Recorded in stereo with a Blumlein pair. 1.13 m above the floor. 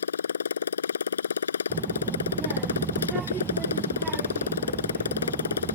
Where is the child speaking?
20° right.